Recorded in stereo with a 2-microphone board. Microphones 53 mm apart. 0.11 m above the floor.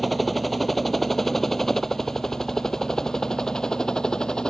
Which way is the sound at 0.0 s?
Centre (ahead or behind).